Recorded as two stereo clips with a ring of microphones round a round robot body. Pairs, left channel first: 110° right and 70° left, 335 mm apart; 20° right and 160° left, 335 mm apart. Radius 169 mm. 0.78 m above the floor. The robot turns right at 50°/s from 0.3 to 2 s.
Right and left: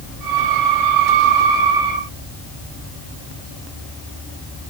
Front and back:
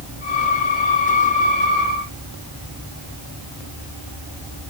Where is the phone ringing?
I don't hear a phone ringing.